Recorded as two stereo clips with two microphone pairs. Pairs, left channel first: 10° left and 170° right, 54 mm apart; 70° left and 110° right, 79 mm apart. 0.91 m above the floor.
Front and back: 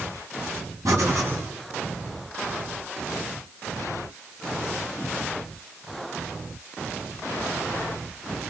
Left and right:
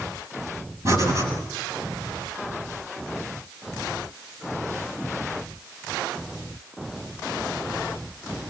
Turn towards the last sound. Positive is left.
turn(degrees=-160)